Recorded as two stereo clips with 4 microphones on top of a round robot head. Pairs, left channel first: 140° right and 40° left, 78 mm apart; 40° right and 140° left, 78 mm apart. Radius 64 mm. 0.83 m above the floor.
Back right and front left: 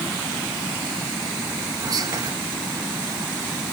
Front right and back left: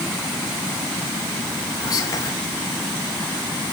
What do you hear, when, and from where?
1.8 s whispering: straight ahead, 2.5 m